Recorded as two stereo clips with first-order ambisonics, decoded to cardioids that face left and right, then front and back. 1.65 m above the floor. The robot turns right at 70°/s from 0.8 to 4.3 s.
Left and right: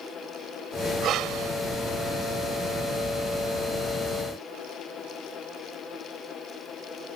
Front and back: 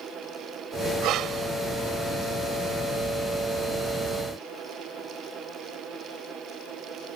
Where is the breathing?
145° right; by 1.6 s 110° right.